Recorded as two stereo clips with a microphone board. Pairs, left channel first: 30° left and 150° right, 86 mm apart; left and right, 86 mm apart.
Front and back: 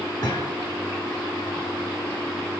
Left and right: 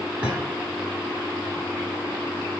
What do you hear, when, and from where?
0.2 s a thud: 15° right, 3.5 m